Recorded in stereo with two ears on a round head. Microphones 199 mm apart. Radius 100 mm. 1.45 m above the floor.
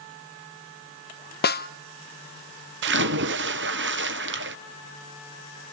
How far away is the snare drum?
About 0.6 m.